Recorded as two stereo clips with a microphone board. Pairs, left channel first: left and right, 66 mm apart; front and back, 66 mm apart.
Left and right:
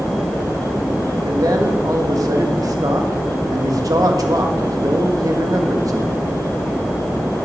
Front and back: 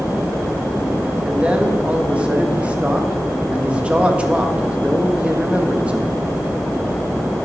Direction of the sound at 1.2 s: 110° right.